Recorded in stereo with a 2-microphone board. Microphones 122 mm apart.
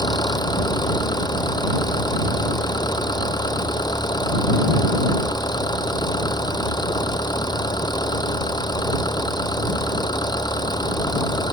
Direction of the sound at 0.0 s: 35° left (ahead or behind).